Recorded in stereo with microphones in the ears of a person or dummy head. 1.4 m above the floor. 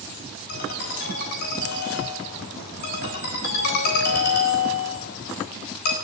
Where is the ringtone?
60° left (ahead or behind), 3.5 m.